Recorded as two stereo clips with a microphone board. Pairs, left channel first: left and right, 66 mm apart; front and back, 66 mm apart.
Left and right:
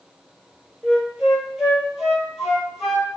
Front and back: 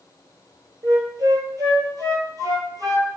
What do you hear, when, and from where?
0.8 s a flute: 175° right, 0.8 m